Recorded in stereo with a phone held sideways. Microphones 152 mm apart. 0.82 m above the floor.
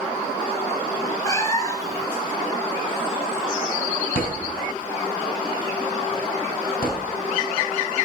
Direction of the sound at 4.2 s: 75° left (ahead or behind).